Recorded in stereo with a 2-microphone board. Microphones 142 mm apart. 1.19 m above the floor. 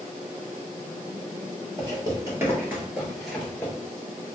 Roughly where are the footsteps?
Right.